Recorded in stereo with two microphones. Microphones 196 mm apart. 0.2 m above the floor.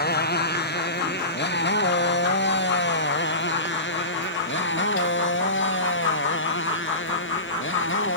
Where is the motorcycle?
55° left (ahead or behind); by 8.2 s 80° left.